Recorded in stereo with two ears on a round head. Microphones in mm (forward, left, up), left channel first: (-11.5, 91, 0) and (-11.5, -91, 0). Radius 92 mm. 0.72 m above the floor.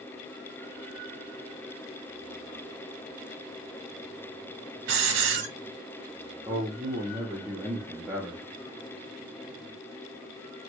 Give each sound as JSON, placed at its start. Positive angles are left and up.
{"t": 4.9, "sound": "a hiss", "side_deg": -65, "distance_m": 0.9}
{"t": 6.5, "sound": "a man speaking", "side_deg": -15, "distance_m": 0.9}